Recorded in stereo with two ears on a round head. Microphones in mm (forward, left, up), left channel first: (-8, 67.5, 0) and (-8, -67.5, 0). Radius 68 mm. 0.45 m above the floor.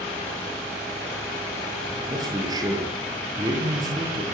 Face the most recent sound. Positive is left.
turn(degrees=-25)  # may be behind; listen again after turning